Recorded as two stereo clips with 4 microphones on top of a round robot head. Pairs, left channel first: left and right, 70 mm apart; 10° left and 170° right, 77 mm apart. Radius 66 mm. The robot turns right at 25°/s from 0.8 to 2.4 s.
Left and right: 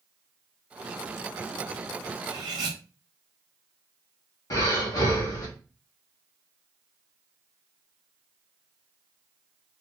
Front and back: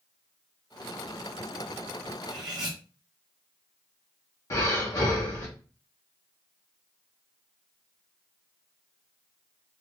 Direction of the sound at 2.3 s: 130° right.